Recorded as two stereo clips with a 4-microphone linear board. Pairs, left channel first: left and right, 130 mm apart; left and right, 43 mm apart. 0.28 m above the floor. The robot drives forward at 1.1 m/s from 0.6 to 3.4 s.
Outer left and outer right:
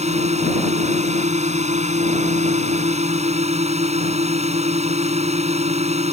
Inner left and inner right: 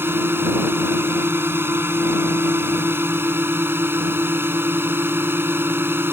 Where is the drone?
60° right (ahead or behind).